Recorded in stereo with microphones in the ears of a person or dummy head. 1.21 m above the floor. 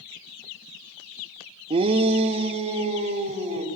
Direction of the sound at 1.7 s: 25° right (ahead or behind).